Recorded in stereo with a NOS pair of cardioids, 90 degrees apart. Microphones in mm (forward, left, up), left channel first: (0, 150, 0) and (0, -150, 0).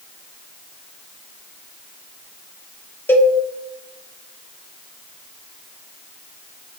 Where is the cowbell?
5° left, 1.1 m.